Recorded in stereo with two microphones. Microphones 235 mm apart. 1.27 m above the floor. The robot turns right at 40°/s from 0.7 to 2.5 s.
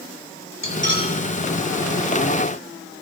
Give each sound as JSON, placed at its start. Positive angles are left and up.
{"t": 0.6, "sound": "cutlery clinking", "side_deg": -50, "distance_m": 3.0}